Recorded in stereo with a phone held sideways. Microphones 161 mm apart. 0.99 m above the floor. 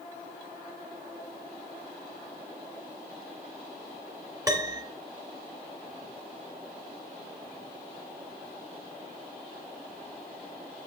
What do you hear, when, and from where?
4.5 s a piano: 20° right (ahead or behind), 1.4 m